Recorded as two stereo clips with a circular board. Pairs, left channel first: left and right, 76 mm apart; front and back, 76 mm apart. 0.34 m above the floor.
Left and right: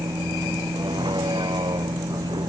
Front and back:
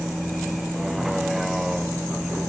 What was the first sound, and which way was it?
A vehicle, 95° right.